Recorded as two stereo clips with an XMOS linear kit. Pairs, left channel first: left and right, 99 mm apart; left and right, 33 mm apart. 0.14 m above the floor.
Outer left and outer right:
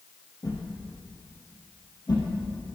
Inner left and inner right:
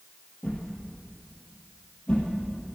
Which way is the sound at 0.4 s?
45° left (ahead or behind).